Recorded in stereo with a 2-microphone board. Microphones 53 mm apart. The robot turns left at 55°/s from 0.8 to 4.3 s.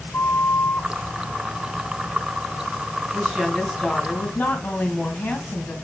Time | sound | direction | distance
0.1 | a flute | 55° left (ahead or behind) | 2 m
3.1 | a woman speaking | 150° right | 1.6 m